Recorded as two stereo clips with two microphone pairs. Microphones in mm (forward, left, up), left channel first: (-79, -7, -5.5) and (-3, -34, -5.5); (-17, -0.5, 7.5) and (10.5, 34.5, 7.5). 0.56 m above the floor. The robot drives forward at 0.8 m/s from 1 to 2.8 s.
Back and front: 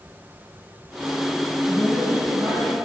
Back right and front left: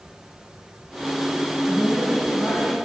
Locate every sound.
1.7 s a woman speaking: 80° right, 5 m; by 2.8 s 90° right, 5 m